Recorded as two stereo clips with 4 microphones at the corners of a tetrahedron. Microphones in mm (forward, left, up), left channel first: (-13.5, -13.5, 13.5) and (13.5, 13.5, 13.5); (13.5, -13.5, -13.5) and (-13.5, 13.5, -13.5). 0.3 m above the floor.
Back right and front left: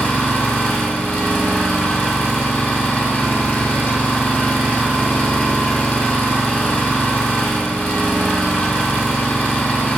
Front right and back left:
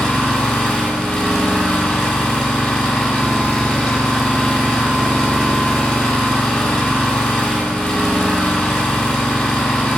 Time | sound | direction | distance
0.0 | an engine running | 105° right | 1.1 m